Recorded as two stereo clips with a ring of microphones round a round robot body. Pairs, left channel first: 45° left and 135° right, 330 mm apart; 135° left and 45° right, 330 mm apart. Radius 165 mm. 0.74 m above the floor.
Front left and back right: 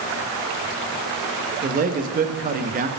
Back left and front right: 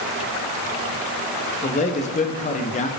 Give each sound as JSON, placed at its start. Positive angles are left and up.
{"t": 1.6, "sound": "a man speaking", "azimuth_deg": -175, "distance_m": 0.5}